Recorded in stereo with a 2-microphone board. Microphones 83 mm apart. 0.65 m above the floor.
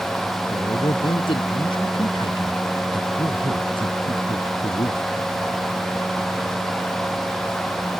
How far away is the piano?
No piano in this recording.